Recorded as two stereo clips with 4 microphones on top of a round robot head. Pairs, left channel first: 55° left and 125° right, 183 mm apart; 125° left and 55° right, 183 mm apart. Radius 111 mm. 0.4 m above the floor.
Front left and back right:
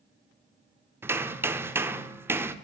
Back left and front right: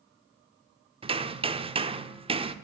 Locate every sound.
1.0 s hammering: 60° right, 1.2 m